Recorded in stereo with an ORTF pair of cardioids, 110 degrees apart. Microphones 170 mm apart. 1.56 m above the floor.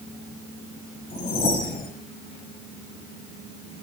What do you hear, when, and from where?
1.1 s a whoosh: 65° left, 1.3 m